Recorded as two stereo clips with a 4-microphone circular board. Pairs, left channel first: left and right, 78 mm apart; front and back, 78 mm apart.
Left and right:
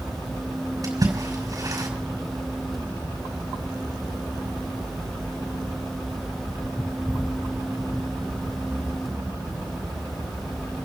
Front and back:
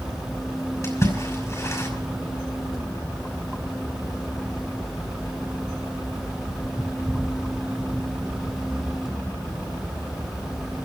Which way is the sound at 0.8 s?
50° right.